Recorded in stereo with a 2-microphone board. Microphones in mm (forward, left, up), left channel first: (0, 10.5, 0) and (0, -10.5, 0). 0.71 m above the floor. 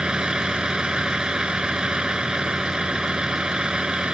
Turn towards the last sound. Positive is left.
turn(degrees=-45)  # may be behind; listen again after turning